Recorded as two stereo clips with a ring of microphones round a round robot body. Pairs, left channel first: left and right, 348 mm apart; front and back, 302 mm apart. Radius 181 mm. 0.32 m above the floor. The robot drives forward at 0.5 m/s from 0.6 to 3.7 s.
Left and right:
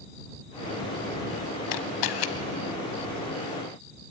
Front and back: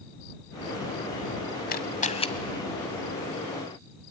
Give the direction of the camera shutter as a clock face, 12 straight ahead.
10 o'clock.